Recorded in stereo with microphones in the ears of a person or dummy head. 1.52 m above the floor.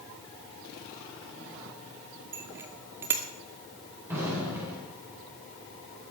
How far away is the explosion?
About 7 m.